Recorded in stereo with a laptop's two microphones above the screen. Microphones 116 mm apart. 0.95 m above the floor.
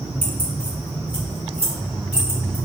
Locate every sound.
0.2 s keys jangling: 75° left (ahead or behind), 2 m; by 2.5 s 50° left (ahead or behind), 5 m